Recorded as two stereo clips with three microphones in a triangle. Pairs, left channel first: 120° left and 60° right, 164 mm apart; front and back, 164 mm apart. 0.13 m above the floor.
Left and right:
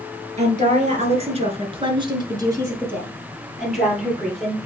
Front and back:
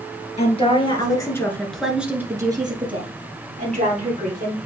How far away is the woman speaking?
About 1.9 m.